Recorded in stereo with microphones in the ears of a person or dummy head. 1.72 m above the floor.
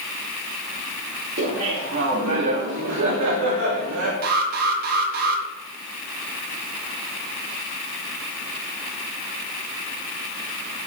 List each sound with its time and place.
1.4 s laughter: 55° right (ahead or behind), 3.5 m; by 4.1 s 75° right (ahead or behind), 3 m
4.2 s an alarm: 50° right (ahead or behind), 3.5 m